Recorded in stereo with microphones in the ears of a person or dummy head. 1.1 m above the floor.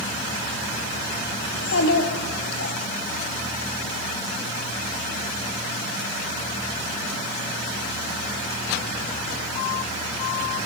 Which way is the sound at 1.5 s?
70° left (ahead or behind).